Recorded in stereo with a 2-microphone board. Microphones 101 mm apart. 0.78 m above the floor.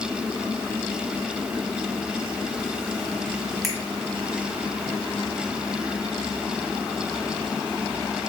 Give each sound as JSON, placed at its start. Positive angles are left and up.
{"t": 3.6, "sound": "a finger snap", "side_deg": 0, "distance_m": 1.4}